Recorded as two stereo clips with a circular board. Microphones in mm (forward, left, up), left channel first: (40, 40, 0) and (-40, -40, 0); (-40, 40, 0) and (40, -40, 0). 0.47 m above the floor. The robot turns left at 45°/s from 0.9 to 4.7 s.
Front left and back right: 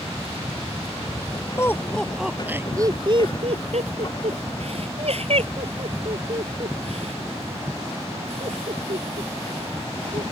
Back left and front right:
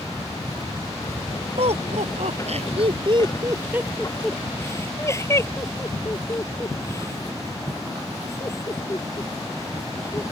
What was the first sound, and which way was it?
Laughter, 20° right.